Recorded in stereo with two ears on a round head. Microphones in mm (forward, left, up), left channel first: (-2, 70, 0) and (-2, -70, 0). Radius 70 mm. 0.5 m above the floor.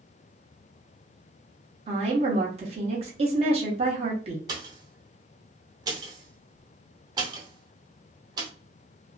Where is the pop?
25° right (ahead or behind), 0.8 m.